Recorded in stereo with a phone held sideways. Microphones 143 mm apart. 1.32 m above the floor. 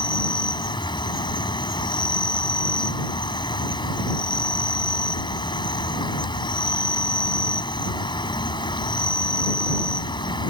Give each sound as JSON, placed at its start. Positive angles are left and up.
{"t": 0.0, "sound": "an insect", "side_deg": 35}